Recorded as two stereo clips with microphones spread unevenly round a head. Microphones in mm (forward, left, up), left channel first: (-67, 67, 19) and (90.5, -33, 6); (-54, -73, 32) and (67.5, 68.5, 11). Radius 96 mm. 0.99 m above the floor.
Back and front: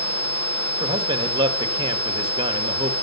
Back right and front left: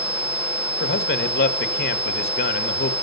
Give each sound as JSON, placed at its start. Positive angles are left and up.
{"t": 0.8, "sound": "a man speaking", "azimuth_deg": -95, "distance_m": 1.8}